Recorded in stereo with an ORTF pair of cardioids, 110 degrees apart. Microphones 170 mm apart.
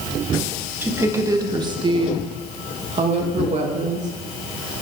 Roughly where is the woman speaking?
Ahead.